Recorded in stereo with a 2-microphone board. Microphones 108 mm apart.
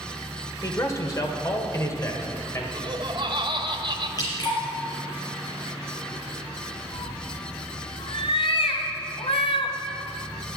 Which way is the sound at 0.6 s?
35° left (ahead or behind).